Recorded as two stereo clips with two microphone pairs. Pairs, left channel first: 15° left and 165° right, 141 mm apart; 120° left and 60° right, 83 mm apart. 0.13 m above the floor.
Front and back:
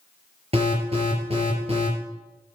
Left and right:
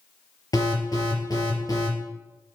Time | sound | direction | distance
0.5 | an alarm | 155° left | 4.5 m